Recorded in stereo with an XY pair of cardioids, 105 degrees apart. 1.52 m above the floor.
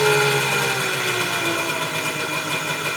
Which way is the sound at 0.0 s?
Straight ahead.